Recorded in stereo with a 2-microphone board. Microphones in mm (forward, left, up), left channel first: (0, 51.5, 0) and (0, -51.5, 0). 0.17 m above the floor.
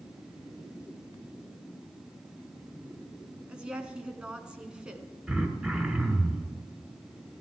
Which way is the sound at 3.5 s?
10° right (ahead or behind).